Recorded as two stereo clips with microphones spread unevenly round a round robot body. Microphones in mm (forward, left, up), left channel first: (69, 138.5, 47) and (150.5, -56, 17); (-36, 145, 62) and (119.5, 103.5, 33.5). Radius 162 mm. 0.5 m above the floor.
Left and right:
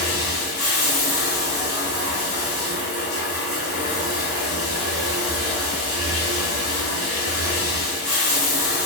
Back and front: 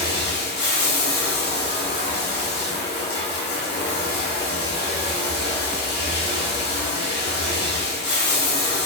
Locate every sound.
0.0 s running water: 150° left, 1.1 m